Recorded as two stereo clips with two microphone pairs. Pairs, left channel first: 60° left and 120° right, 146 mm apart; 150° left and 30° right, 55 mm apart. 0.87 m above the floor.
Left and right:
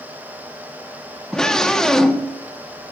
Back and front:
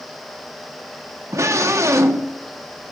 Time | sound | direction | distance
1.3 | a scream | 25° right | 1.5 m